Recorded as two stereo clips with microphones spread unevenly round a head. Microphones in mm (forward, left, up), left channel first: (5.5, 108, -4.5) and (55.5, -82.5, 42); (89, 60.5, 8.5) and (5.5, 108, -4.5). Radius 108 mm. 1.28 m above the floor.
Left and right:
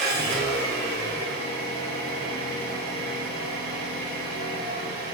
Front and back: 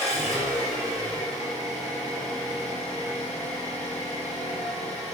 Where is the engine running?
30° right, 1.3 m.